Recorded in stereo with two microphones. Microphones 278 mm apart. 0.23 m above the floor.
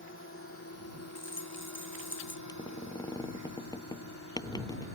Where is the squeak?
15° left (ahead or behind).